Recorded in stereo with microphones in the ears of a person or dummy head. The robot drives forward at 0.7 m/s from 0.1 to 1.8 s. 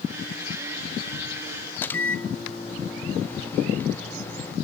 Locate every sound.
1.8 s a microwave: 10° left (ahead or behind), 0.8 m